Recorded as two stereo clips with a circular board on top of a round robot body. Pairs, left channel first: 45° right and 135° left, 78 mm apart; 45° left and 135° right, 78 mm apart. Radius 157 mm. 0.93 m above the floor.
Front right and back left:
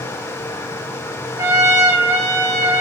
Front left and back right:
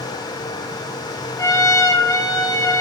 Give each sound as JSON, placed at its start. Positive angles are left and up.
{"t": 1.4, "sound": "a trumpet", "azimuth_deg": 85, "distance_m": 6.5}